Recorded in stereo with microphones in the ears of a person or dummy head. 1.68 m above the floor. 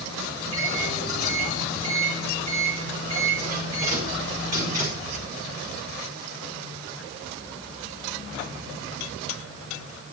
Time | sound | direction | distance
0.4 | a microwave | 50° right (ahead or behind) | 5 m